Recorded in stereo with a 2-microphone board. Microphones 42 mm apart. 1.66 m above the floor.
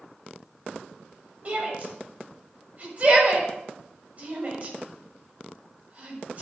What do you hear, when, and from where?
1.4 s a shout: 40° right (ahead or behind), 7 m